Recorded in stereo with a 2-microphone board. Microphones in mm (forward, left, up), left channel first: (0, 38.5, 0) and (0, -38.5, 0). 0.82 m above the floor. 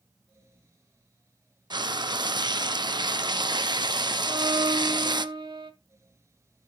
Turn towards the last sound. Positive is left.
turn(degrees=-80)